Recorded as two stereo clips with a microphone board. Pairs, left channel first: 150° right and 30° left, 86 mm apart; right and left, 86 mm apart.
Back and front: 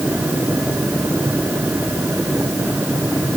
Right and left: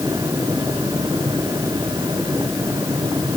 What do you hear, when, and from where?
Only background noise.